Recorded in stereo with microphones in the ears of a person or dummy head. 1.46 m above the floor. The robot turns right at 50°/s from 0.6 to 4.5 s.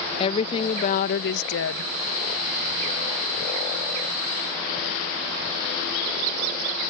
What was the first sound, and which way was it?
A woman speaking, 30° left.